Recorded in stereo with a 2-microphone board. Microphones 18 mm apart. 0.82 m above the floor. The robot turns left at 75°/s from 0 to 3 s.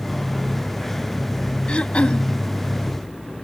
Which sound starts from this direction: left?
Throat clearing, at 1.7 s.